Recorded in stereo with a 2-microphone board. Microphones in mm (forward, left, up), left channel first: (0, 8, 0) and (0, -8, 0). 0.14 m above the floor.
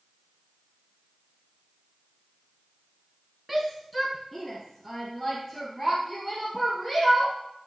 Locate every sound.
3.5 s a shout: 5° left (ahead or behind), 1.1 m; by 7.3 s 40° left (ahead or behind), 3.5 m